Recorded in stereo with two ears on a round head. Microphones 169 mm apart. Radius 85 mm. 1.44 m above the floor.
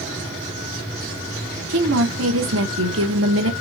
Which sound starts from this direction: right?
A woman speaking, at 1.7 s.